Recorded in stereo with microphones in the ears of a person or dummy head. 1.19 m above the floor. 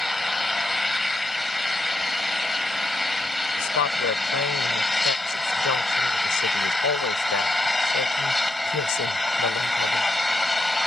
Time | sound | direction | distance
0.0 | an engine running | 5° right (ahead or behind) | ?
3.6 | a woman speaking | 75° left (ahead or behind) | ?